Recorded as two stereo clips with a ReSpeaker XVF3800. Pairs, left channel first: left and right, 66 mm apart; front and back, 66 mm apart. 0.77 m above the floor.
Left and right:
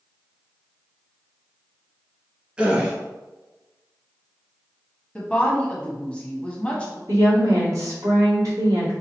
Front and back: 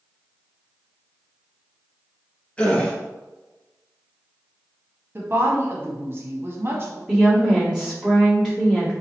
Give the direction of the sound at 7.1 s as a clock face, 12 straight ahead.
3 o'clock.